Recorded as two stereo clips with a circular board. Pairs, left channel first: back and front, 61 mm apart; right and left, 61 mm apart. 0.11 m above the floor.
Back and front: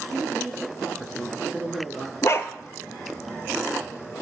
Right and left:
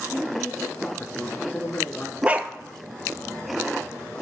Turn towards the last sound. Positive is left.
turn(degrees=155)